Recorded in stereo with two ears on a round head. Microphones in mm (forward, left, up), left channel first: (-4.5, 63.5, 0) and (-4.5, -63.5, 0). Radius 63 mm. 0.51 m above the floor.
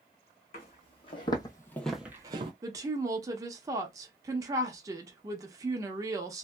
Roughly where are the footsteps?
Left.